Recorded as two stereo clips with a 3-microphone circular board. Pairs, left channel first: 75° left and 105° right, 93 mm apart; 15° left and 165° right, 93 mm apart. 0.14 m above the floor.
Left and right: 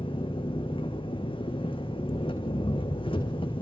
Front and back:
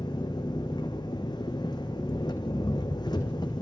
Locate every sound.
0.0 s an engine running: 55° left, 2.5 m